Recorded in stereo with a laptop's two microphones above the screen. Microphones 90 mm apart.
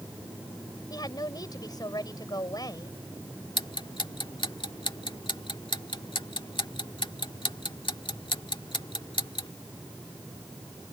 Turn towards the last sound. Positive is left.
turn(degrees=70)  # may be behind; listen again after turning